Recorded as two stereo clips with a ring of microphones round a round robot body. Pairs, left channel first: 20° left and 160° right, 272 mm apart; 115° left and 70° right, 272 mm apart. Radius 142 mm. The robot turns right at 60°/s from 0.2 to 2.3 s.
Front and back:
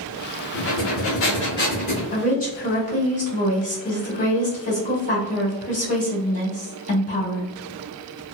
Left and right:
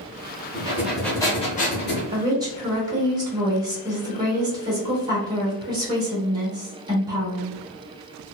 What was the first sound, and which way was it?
Breathing, 5° right.